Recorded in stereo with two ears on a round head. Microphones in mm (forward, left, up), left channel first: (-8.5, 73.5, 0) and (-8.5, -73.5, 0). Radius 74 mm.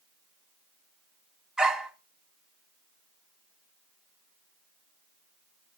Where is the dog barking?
5° right (ahead or behind), 1.4 m.